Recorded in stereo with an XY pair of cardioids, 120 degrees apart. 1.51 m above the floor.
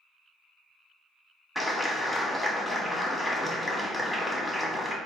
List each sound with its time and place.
1.6 s a clap: 10° left, 1.1 m